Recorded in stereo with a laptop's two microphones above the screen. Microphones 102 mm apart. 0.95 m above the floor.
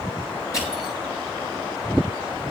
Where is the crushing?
35° left (ahead or behind), 6.5 m.